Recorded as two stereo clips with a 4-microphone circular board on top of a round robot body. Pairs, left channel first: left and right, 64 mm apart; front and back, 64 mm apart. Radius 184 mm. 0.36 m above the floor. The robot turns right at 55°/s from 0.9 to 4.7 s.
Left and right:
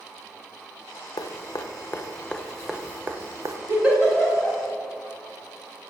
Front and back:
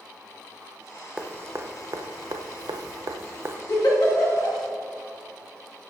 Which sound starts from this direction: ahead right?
A giggle, at 3.7 s.